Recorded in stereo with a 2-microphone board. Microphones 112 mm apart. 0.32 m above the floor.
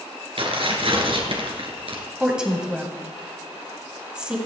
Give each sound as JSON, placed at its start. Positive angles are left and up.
{"t": 0.4, "sound": "tearing paper", "side_deg": -55, "distance_m": 2.5}
{"t": 2.2, "sound": "a woman speaking", "side_deg": -10, "distance_m": 2.5}